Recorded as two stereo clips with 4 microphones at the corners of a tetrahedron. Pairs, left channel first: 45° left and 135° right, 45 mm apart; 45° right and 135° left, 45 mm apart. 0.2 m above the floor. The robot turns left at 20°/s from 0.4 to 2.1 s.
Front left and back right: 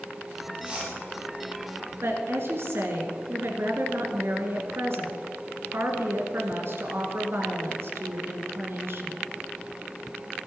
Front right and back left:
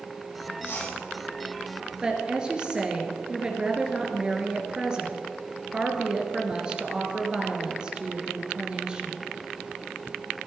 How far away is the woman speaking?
About 2.5 m.